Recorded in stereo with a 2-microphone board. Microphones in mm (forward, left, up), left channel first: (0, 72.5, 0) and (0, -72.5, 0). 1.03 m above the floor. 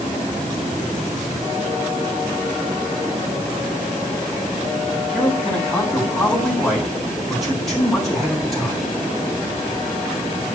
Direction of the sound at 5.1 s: Centre (ahead or behind).